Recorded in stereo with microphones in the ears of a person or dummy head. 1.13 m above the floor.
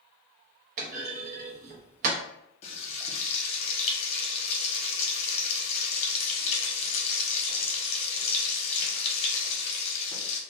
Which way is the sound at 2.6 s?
35° left (ahead or behind).